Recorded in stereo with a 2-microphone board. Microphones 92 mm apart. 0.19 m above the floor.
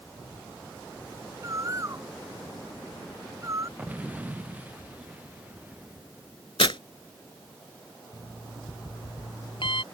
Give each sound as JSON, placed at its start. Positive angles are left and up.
{"t": 1.4, "sound": "a bird", "side_deg": -35}
{"t": 3.8, "sound": "an explosion", "side_deg": -15}
{"t": 6.6, "sound": "tearing paper", "side_deg": 70}
{"t": 8.1, "sound": "an alarm clock", "side_deg": 70}